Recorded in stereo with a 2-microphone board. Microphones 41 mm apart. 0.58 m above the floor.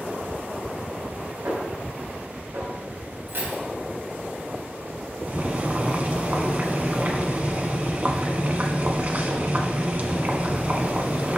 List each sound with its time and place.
1.4 s a snare drum: 75° right (ahead or behind), 5 m
3.3 s keys jangling: 65° right (ahead or behind), 3 m
5.3 s boiling: 35° right (ahead or behind), 1.2 m